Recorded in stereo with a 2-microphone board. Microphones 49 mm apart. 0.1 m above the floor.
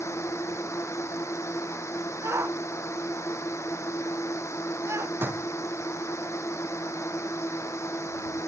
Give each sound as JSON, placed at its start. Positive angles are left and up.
{"t": 0.0, "sound": "a drone", "side_deg": 75}
{"t": 2.2, "sound": "a shout", "side_deg": -70}
{"t": 5.2, "sound": "a door slam", "side_deg": -45}